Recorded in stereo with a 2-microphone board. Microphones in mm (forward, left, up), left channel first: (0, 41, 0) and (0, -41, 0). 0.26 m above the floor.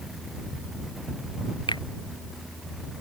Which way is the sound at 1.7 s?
70° left (ahead or behind).